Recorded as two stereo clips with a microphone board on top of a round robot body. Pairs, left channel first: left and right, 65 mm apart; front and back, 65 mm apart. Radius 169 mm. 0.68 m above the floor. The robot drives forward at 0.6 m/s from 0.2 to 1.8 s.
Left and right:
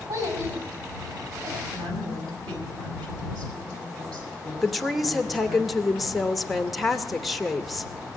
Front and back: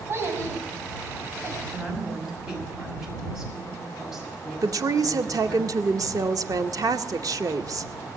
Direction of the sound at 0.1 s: 130° right.